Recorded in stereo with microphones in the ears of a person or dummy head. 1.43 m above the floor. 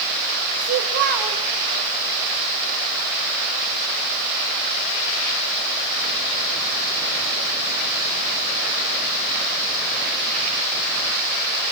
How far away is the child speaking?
About 3.5 m.